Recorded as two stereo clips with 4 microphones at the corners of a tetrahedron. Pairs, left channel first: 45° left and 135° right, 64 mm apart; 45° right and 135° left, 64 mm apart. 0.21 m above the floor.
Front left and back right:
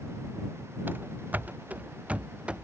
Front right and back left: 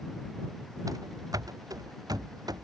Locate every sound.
0.9 s running footsteps: 165° left; by 2.6 s 150° left